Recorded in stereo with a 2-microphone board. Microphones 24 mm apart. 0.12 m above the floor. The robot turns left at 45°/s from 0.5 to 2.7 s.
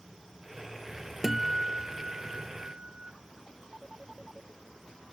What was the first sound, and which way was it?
A guitar, 15° right.